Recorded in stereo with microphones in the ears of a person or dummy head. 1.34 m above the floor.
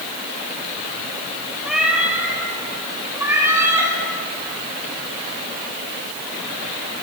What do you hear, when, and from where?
1.6 s a cat meowing: 5° right (ahead or behind), 2.5 m; by 3.9 s 20° right (ahead or behind), 3.5 m